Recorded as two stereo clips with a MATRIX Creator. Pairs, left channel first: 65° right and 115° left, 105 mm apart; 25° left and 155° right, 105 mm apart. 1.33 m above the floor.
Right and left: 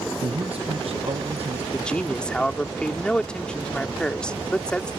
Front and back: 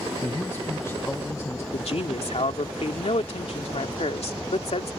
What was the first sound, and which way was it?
A man speaking, 90° left.